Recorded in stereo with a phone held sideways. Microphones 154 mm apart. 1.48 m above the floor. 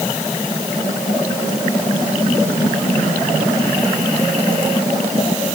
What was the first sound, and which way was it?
Only background noise.